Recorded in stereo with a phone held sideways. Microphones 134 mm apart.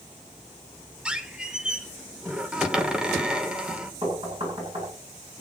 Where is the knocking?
40° right (ahead or behind), 9 m.